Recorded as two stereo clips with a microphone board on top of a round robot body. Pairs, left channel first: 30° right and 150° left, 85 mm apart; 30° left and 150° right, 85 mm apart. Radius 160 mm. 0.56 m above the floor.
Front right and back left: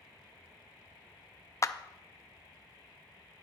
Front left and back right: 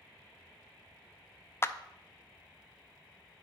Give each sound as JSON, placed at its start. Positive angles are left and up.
{"t": 1.6, "sound": "a clap", "azimuth_deg": -10, "distance_m": 0.6}